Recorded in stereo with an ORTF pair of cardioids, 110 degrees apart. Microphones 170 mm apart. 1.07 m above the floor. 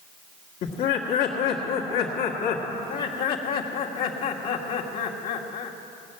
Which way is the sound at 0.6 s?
65° left.